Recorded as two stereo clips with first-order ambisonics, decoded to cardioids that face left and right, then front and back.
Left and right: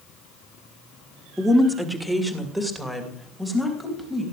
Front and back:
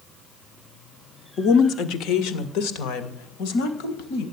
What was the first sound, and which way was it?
A woman speaking, straight ahead.